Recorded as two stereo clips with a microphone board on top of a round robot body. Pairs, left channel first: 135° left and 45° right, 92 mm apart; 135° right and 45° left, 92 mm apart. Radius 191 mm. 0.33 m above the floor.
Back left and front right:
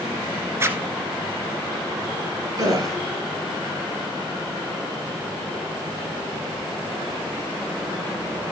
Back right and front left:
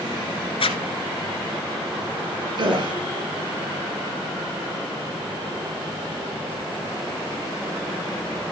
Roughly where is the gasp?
Ahead.